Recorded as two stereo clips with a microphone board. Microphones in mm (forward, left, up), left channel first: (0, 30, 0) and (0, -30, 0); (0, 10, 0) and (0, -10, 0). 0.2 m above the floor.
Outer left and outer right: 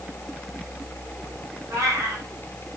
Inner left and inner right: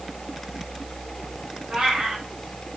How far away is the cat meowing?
About 7.5 m.